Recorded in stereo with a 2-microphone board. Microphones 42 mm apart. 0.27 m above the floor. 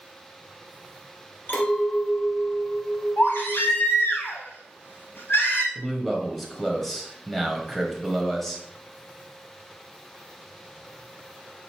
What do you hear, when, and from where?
1.5 s a clink: 55° left (ahead or behind), 2.5 m
3.2 s a baby crying: 80° left, 3 m
5.8 s a man speaking: 5° left (ahead or behind), 1.3 m